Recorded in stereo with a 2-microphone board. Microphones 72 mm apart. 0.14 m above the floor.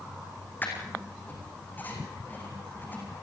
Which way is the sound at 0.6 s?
25° left (ahead or behind).